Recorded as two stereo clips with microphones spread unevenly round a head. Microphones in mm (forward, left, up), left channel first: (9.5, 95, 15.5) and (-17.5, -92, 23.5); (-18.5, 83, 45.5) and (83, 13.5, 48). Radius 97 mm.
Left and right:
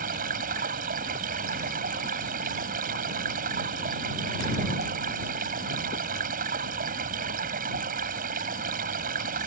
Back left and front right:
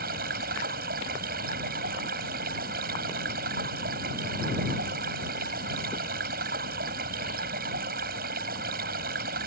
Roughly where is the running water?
Ahead right.